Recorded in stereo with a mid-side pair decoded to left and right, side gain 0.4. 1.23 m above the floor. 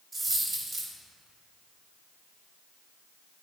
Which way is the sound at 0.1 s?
45° right.